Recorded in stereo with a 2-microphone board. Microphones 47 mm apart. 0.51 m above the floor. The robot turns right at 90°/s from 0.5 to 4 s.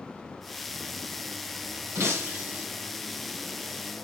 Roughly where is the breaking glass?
Right.